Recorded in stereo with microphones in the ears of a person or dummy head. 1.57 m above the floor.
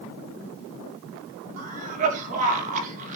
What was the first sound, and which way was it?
A cough, 40° right (ahead or behind).